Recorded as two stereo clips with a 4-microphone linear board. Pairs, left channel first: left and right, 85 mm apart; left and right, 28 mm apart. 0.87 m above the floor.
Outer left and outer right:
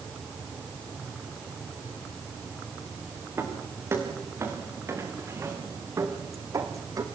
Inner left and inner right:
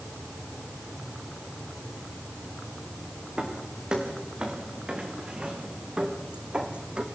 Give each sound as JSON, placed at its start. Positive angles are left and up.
{"t": 3.4, "sound": "footsteps", "side_deg": -30, "distance_m": 6.5}